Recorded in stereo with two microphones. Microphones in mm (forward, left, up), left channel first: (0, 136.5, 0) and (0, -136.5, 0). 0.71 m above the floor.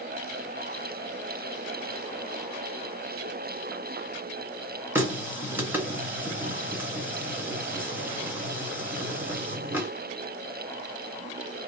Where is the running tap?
10° right (ahead or behind), 1.0 m.